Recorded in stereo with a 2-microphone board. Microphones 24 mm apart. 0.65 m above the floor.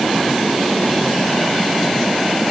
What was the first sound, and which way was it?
Only background noise.